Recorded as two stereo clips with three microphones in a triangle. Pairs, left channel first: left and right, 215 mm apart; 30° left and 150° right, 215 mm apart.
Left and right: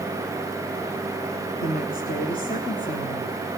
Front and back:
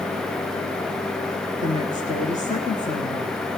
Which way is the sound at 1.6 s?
65° left.